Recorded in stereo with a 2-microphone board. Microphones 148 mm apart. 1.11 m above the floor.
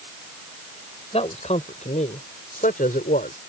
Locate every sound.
1.1 s a man speaking: 45° left (ahead or behind); by 3.4 s 80° left